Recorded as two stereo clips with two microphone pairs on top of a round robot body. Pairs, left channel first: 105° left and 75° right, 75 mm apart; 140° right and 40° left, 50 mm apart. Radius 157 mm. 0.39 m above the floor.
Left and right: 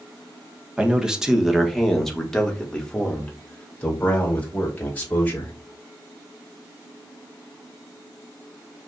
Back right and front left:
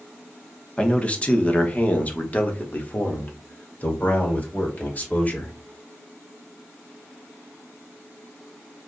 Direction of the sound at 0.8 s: 140° right.